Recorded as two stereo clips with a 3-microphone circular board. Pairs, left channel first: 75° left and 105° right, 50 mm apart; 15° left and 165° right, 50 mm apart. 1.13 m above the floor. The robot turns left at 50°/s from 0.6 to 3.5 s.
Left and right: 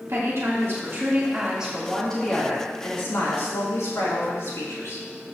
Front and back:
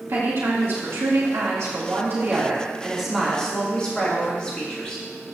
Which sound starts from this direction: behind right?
A woman speaking, at 0.1 s.